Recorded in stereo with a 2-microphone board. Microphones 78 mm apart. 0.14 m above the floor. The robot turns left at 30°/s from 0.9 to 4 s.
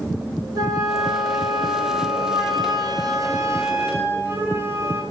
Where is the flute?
55° right, 7.5 m; by 5.0 s 150° right, 7.5 m.